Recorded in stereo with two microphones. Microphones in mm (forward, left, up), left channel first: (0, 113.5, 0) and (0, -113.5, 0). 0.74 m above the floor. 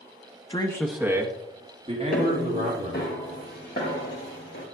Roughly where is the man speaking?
Left.